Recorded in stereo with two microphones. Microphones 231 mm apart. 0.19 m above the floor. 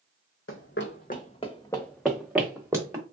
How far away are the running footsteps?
About 0.7 m.